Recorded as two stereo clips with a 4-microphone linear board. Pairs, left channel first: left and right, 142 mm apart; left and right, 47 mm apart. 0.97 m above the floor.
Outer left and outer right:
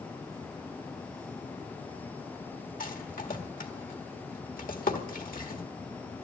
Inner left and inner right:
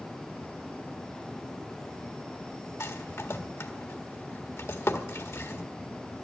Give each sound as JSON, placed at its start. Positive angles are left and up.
{"t": 2.8, "sound": "a rattle", "side_deg": 75, "distance_m": 1.7}